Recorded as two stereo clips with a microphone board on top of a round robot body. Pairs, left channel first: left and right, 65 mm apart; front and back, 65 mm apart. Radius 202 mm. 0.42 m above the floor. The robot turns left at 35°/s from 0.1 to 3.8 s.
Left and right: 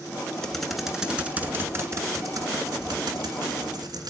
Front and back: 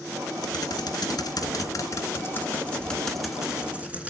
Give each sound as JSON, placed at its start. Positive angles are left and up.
{"t": 0.4, "sound": "typing on a keyboard", "azimuth_deg": 10, "distance_m": 2.0}